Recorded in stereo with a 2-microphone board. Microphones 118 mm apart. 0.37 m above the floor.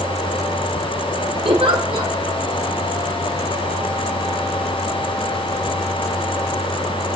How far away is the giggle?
About 2 m.